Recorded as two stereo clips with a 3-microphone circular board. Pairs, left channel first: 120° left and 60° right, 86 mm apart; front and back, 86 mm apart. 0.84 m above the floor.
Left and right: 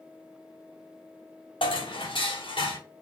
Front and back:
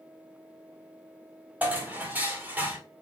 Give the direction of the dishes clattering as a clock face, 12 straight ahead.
8 o'clock.